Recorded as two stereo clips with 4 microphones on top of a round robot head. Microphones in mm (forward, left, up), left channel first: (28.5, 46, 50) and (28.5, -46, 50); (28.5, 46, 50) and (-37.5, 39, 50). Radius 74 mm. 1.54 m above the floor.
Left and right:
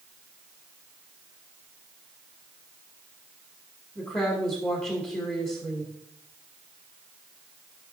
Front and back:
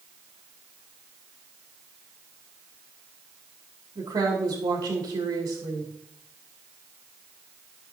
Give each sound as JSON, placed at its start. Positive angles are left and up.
{"t": 4.0, "sound": "a woman speaking", "azimuth_deg": 160, "distance_m": 2.0}